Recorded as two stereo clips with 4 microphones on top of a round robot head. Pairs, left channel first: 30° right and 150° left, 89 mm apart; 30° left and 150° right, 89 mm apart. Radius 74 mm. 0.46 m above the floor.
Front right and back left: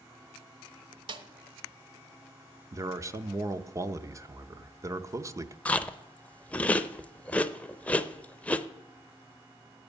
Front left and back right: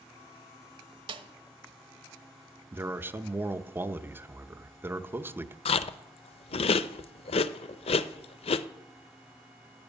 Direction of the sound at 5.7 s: 45° left.